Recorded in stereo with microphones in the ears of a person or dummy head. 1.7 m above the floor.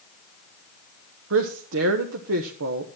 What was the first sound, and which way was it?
A woman speaking, 70° right (ahead or behind).